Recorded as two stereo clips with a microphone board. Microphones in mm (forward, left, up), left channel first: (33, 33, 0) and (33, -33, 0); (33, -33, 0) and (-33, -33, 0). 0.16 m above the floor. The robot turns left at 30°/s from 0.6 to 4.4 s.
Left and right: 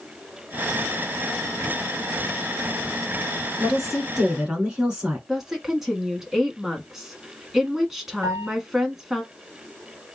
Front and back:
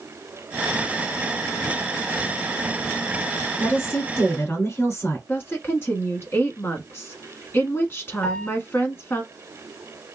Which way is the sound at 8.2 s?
65° right.